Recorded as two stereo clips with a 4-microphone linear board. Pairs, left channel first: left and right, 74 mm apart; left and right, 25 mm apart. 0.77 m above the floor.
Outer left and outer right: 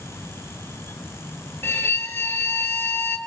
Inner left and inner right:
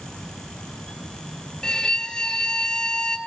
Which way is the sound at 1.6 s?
25° left (ahead or behind).